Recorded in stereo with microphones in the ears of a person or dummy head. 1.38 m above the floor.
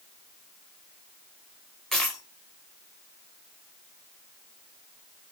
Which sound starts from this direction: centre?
A dropped coin, at 1.9 s.